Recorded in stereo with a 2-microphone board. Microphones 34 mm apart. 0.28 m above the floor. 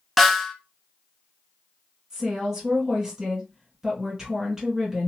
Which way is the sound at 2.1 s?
10° right (ahead or behind).